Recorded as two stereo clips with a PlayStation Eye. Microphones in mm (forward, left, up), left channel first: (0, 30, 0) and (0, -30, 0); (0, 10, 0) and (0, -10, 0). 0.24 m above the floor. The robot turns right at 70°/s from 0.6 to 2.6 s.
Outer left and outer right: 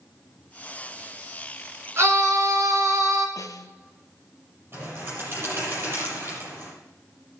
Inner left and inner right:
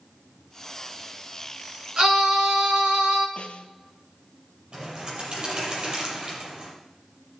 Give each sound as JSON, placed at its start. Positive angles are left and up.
{"t": 2.0, "sound": "a scream", "azimuth_deg": -130, "distance_m": 3.0}
{"t": 3.4, "sound": "a snare drum", "side_deg": 75, "distance_m": 0.9}
{"t": 4.7, "sound": "a bird", "side_deg": -40, "distance_m": 8.0}